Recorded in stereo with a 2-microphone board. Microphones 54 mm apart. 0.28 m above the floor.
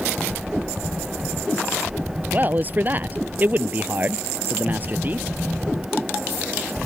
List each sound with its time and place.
2.3 s a man speaking: 35° right (ahead or behind)